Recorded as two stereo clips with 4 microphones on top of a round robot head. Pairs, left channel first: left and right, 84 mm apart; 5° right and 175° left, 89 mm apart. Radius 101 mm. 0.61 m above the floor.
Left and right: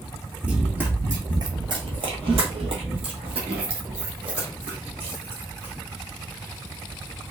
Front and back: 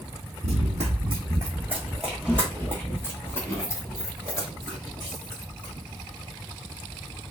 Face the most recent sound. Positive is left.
turn(degrees=-65)